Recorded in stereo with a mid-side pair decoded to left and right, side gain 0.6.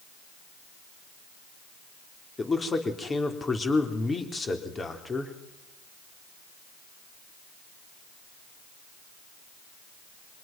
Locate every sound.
2.4 s a man speaking: 25° left, 3.5 m